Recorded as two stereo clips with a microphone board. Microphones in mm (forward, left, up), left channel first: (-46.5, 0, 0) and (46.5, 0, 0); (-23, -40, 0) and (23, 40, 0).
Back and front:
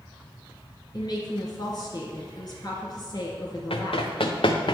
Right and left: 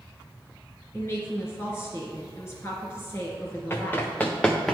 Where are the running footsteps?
175° left, 1.2 m; by 4.7 s 150° left, 0.9 m.